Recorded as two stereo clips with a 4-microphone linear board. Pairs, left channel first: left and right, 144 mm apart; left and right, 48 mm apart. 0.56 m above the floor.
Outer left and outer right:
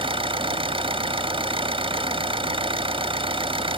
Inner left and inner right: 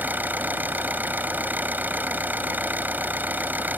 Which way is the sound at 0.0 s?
40° right (ahead or behind).